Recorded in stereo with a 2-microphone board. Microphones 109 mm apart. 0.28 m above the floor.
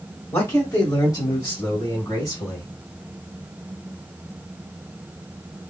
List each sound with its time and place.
0.3 s a man speaking: 20° left (ahead or behind), 1.4 m; by 2.7 s 40° left (ahead or behind), 2.5 m